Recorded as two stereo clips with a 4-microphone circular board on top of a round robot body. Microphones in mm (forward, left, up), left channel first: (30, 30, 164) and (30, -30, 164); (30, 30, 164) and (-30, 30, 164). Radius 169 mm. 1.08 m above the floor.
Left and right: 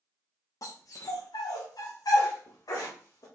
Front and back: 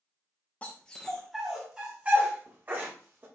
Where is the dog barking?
65° left, 0.9 m; by 3.2 s 125° left, 1.6 m.